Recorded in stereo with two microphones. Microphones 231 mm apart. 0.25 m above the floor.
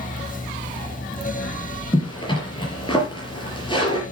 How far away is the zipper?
About 5 m.